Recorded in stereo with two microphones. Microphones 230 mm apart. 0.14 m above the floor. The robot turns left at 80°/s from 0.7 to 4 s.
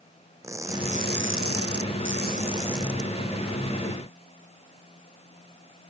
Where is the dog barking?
No dog barking in this recording.